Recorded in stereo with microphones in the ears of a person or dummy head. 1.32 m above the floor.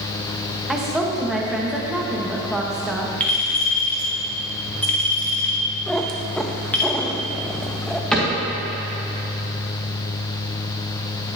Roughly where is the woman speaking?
Centre.